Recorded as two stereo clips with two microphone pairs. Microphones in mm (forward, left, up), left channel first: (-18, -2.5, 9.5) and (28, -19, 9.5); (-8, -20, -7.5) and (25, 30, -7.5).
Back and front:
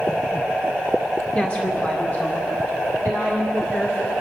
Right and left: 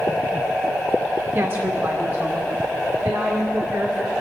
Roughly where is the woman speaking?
Left.